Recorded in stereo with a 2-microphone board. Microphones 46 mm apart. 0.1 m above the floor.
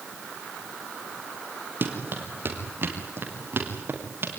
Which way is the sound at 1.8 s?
50° right (ahead or behind).